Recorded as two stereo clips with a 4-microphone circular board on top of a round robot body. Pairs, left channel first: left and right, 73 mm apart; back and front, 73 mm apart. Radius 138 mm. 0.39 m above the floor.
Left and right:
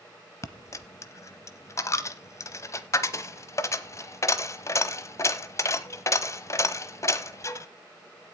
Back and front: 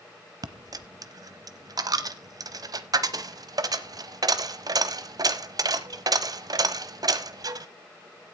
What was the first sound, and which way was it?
A dropped coin, 35° left.